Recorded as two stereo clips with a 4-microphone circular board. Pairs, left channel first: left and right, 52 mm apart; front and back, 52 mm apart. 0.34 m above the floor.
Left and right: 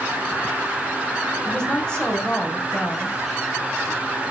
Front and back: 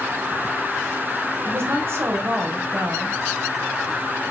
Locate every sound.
1.4 s a woman speaking: 160° left, 2.5 m